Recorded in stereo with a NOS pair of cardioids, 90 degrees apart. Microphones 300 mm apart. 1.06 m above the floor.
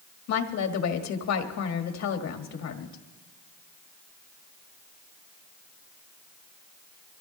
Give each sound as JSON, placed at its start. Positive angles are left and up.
{"t": 0.3, "sound": "a woman speaking", "azimuth_deg": 65, "distance_m": 1.7}